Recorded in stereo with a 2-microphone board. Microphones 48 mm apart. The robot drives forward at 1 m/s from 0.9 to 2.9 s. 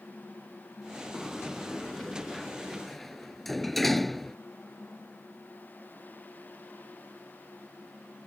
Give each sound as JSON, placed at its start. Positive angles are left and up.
{"t": 1.1, "sound": "a sliding door", "side_deg": 5}